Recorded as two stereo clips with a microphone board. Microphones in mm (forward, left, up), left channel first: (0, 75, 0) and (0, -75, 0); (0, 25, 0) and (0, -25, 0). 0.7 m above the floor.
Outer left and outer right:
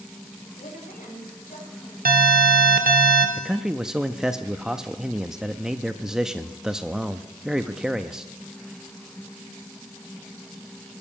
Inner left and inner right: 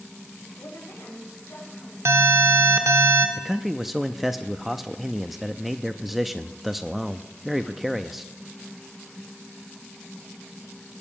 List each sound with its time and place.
0.6 s a woman speaking: 75° left (ahead or behind), 4 m; by 1.9 s 65° left (ahead or behind), 4.5 m
2.0 s an alarm: 75° right (ahead or behind), 1.2 m
3.4 s a man speaking: 5° right (ahead or behind), 0.5 m